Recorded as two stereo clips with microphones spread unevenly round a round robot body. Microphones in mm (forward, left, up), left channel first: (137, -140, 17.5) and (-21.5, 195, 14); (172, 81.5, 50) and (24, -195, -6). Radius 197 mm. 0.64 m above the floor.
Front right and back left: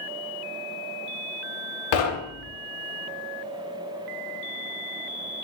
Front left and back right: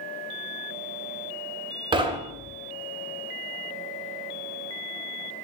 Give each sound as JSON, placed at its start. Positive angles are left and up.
{"t": 1.9, "sound": "knocking", "azimuth_deg": -45, "distance_m": 0.7}